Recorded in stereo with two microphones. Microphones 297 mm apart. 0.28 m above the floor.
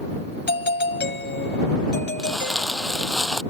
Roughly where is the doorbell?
Left.